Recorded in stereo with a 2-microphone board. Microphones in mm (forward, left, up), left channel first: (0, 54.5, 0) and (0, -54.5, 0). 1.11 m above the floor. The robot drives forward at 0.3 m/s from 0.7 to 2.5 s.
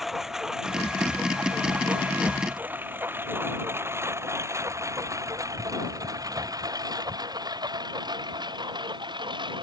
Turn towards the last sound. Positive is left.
turn(degrees=-40)  # may be behind; listen again after turning